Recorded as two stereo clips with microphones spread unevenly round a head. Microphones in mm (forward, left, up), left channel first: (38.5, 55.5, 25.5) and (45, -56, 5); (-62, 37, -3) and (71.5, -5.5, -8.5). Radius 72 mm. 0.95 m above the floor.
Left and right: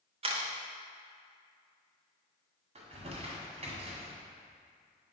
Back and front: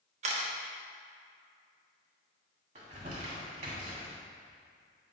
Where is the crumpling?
65° right, 1.9 m.